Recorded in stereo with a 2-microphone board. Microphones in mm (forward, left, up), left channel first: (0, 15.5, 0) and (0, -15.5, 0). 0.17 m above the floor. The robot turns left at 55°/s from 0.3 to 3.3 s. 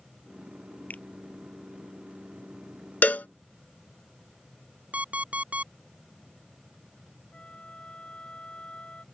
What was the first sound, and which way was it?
A finger snap, 60° left (ahead or behind).